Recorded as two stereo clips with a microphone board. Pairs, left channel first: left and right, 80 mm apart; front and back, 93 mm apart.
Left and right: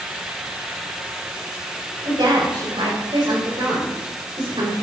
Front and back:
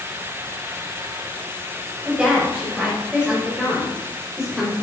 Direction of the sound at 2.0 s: 100° right.